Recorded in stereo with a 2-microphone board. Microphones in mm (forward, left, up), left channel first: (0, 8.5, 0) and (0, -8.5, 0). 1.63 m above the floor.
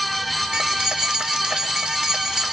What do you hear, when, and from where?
0.5 s keys jangling: 80° right, 3.5 m